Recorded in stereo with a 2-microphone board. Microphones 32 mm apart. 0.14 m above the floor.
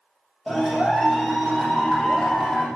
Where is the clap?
5° left (ahead or behind), 5 m.